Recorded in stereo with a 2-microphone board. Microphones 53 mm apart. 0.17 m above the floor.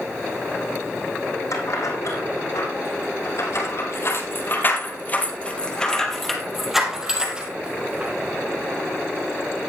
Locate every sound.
1.5 s keys jangling: 80° left, 6 m; by 8.1 s 25° right (ahead or behind), 5 m